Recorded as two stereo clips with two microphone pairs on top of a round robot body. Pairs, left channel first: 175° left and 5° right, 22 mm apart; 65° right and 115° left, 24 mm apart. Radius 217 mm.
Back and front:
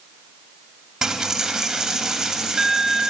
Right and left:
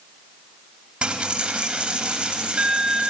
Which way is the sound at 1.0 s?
60° left.